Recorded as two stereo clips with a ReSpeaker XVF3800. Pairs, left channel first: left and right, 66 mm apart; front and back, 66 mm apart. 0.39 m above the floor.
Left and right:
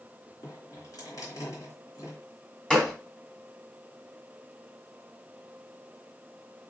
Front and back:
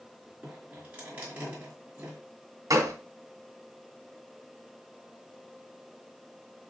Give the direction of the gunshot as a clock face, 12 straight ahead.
6 o'clock.